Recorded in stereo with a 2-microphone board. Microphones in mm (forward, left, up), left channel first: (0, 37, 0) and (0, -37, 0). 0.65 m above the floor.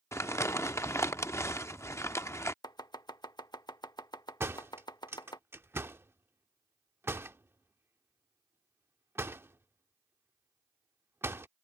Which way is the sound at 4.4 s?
35° right (ahead or behind).